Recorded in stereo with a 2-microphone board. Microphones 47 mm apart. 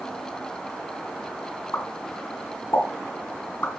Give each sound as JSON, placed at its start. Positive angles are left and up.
{"t": 1.7, "sound": "a pop", "side_deg": 65, "distance_m": 3.0}